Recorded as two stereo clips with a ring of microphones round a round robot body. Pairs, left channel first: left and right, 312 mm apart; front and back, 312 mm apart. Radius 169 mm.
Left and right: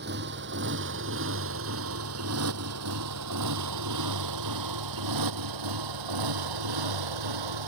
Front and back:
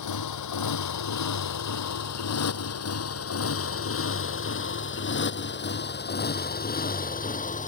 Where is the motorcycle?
30° right; by 7.7 s 65° right.